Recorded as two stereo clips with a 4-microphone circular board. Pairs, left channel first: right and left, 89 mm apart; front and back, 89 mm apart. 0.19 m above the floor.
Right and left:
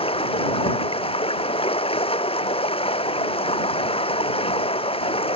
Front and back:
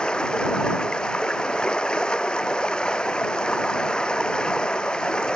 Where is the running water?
80° right.